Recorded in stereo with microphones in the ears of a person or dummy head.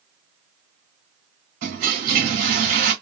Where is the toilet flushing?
35° right (ahead or behind), 1.5 m.